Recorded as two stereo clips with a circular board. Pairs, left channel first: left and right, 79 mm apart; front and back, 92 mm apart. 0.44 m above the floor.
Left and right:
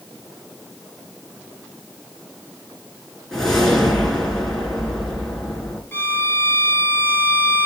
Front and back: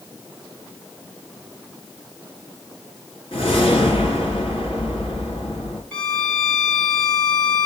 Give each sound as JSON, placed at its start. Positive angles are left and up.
{"t": 3.3, "sound": "a whoosh", "azimuth_deg": 5, "distance_m": 3.5}
{"t": 5.9, "sound": "a violin", "azimuth_deg": 70, "distance_m": 1.3}